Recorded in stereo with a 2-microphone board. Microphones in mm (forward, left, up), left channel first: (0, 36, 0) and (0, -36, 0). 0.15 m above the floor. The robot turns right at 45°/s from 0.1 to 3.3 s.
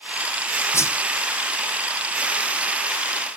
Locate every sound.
0.7 s a whoosh: 40° left (ahead or behind), 0.7 m